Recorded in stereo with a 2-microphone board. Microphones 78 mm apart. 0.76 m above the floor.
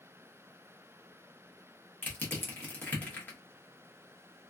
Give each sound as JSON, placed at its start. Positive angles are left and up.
{"t": 2.0, "sound": "crushing", "side_deg": 20, "distance_m": 1.0}